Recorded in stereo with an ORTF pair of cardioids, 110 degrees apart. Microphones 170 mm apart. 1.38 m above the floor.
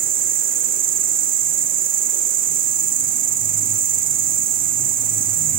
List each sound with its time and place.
0.0 s an insect: 55° right, 0.7 m